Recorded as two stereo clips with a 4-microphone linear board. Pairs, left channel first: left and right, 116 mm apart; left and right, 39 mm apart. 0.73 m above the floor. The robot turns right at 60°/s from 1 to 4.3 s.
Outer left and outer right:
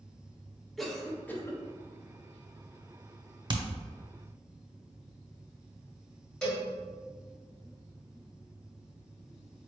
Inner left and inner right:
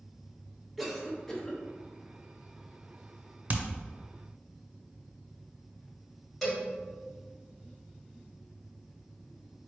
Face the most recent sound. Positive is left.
turn(degrees=5)  # may be behind; listen again after turning